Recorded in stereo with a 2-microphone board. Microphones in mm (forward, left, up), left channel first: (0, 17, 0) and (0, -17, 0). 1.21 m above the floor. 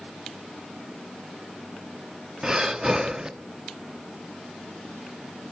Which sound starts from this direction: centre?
Breathing, at 2.4 s.